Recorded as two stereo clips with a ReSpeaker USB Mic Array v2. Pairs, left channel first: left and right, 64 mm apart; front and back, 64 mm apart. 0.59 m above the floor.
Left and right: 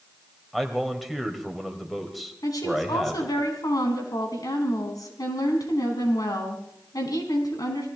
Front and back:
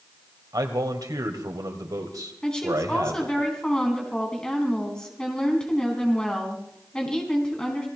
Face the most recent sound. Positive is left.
turn(degrees=80)